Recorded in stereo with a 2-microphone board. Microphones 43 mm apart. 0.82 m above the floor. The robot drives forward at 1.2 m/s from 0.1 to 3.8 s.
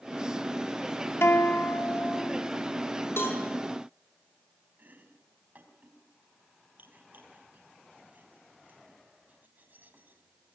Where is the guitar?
70° left (ahead or behind), 2 m; by 2.5 s 50° left (ahead or behind), 2.5 m.